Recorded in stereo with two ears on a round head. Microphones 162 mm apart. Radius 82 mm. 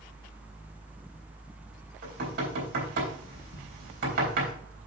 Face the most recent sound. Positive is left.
turn(degrees=-60)  # may be behind; listen again after turning